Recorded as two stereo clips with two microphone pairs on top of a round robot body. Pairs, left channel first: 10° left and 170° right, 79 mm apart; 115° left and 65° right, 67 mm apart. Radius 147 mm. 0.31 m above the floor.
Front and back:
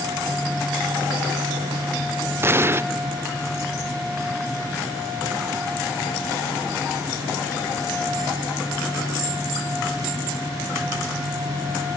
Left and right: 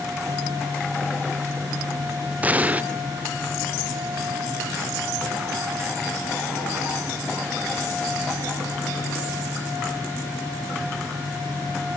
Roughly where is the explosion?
Behind right.